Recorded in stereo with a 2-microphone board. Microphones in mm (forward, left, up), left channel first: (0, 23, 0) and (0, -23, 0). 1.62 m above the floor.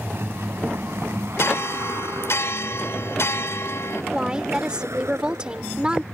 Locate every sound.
0.0 s a vehicle: 60° right (ahead or behind); by 6.1 s 85° right
1.4 s a bell: 75° left (ahead or behind)
4.1 s a woman speaking: 20° right (ahead or behind)